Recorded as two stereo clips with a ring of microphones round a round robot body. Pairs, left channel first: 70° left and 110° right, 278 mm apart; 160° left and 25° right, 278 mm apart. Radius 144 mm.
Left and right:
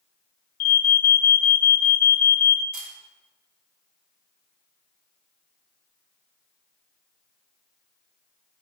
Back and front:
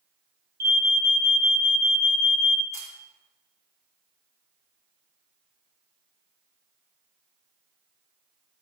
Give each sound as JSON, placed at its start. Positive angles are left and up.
{"t": 0.6, "sound": "an alarm", "azimuth_deg": 35, "distance_m": 1.1}
{"t": 2.7, "sound": "a camera shutter", "azimuth_deg": -105, "distance_m": 2.5}